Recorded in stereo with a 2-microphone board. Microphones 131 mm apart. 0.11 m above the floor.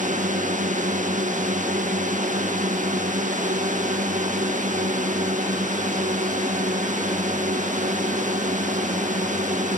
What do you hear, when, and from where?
0.0 s a drone: 75° right (ahead or behind)